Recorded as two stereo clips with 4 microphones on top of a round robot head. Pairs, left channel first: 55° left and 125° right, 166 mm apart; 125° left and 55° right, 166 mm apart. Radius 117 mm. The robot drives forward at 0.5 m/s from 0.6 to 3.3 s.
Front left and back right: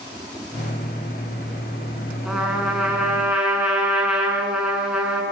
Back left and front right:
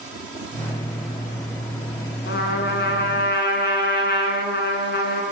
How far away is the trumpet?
About 7 m.